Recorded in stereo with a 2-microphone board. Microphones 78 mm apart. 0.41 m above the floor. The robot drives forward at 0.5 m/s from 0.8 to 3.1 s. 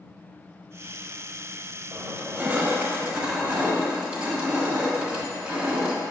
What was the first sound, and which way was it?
Crushing, 30° right (ahead or behind).